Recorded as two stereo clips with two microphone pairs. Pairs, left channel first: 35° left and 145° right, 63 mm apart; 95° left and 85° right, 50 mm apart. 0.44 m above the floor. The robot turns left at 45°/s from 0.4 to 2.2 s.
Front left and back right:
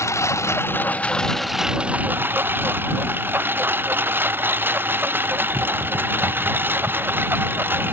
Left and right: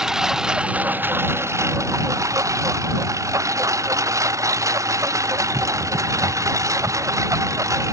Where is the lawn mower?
5° right; by 7.9 s 85° right.